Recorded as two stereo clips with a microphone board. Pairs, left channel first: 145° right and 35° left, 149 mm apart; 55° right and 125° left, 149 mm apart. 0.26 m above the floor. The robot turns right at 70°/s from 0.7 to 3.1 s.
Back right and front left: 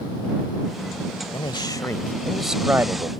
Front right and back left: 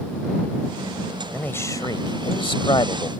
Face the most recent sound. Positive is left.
turn(degrees=-10)